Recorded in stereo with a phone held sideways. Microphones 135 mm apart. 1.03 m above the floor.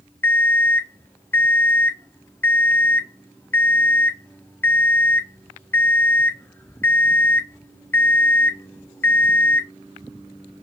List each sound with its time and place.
0.2 s an alarm clock: 15° left (ahead or behind), 0.5 m